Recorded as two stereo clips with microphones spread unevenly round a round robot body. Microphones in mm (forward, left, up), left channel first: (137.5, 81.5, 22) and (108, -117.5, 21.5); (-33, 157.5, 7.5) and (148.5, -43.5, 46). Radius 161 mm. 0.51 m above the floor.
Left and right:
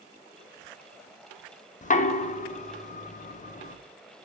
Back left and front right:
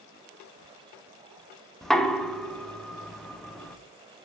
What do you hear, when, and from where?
1.8 s knocking: 55° left, 0.7 m